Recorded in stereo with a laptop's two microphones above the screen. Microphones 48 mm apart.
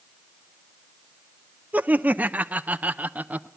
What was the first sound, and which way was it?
Laughter, 30° right (ahead or behind).